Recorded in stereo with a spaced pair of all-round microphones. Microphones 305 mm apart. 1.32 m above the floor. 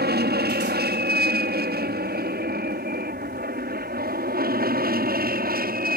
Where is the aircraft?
30° right (ahead or behind).